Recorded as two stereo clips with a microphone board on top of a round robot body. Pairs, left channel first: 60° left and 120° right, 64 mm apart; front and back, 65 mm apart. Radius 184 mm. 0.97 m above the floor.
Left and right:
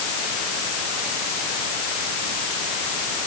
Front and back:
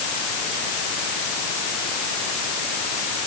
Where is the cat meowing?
No cat meowing in this recording.